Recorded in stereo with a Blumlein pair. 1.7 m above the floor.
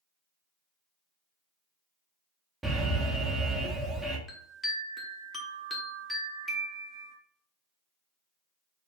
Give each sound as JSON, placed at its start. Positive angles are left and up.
{"t": 2.6, "sound": "an alarm", "azimuth_deg": -10, "distance_m": 0.7}
{"t": 4.3, "sound": "a chime", "azimuth_deg": 0, "distance_m": 0.9}